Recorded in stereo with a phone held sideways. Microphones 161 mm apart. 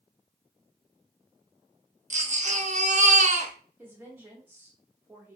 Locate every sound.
2.1 s a baby crying: 45° right (ahead or behind), 0.6 m
3.8 s a woman speaking: 10° right (ahead or behind), 0.7 m